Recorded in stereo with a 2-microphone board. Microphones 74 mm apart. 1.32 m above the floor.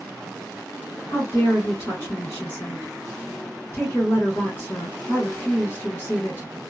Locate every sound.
1.1 s a woman speaking: 35° left (ahead or behind), 1.9 m